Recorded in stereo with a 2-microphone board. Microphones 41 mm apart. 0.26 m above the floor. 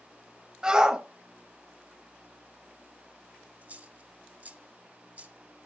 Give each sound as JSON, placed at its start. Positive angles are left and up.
{"t": 0.6, "sound": "a shout", "side_deg": -20, "distance_m": 1.2}
{"t": 3.6, "sound": "a dropped coin", "side_deg": -35, "distance_m": 1.6}